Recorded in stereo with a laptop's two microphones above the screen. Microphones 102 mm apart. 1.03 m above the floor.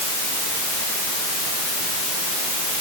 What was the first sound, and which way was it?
Only background noise.